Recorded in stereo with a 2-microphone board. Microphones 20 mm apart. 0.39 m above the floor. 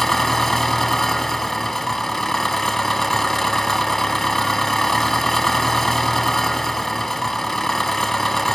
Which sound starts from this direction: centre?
An engine running, at 0.0 s.